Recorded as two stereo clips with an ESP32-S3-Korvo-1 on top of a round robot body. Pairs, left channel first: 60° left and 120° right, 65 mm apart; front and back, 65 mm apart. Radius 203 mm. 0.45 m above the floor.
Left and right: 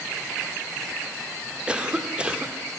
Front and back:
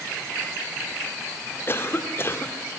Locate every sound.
1.7 s a cough: 50° right, 2.5 m